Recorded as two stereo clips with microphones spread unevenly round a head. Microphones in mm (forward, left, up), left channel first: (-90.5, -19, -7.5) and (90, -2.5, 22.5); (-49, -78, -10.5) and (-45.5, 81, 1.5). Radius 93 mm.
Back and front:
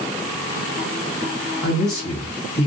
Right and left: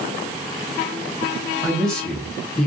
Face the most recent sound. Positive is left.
turn(degrees=180)